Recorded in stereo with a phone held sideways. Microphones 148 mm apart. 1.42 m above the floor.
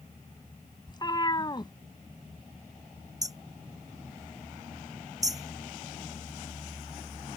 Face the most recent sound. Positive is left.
turn(degrees=-25)  # may be behind; listen again after turning